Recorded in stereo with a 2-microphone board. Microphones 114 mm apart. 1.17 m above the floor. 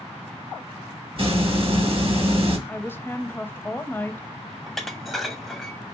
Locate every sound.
1.2 s a hiss: 50° right (ahead or behind), 0.8 m
2.7 s a woman speaking: 15° left (ahead or behind), 0.5 m
4.7 s dishes clattering: centre (ahead or behind), 0.6 m